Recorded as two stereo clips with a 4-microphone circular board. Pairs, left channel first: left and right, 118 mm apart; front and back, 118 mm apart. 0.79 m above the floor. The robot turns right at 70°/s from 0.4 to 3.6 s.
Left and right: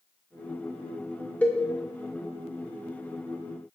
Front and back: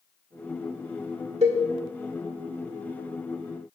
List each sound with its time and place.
1.4 s a cowbell: 170° left, 1.6 m; by 1.6 s 175° right, 1.6 m